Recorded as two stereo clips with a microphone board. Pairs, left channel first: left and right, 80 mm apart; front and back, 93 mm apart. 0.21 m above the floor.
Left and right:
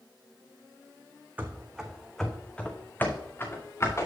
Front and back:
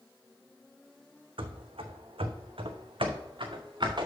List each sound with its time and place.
1.4 s running footsteps: 160° right, 1.0 m; by 4.1 s 140° left, 1.7 m